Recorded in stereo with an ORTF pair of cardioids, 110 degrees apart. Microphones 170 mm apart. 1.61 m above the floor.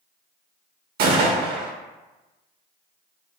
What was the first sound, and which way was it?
A gunshot, 65° right.